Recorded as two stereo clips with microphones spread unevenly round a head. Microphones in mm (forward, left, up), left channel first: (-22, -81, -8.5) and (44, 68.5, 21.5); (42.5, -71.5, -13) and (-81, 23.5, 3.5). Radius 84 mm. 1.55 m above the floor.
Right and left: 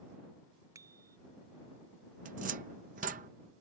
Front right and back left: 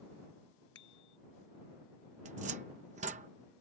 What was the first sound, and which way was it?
A bicycle bell, 5° right.